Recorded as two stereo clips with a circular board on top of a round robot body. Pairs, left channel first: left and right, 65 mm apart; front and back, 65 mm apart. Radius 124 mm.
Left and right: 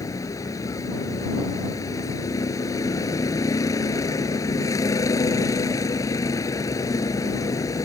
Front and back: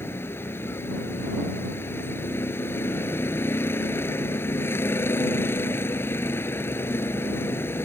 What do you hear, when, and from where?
0.0 s a vehicle: 55° left